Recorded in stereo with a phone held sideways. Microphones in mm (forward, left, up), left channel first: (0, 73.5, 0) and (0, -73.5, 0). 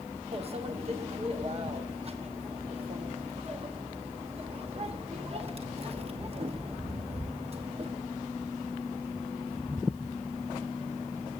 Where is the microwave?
45° right (ahead or behind), 1.1 m.